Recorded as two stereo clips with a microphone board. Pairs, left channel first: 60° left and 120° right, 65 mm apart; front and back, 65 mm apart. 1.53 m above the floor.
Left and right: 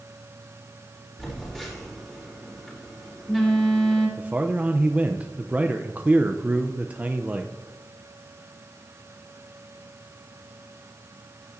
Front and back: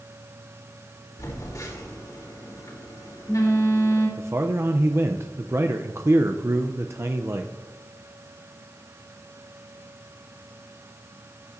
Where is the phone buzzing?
25° right, 3.5 m.